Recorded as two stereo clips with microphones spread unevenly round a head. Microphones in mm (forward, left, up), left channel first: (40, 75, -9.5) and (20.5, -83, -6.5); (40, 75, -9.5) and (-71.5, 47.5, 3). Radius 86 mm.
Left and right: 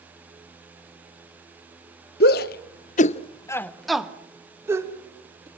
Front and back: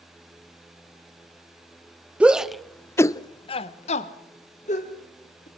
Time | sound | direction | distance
2.2 | a shout | 110° left | 1.1 m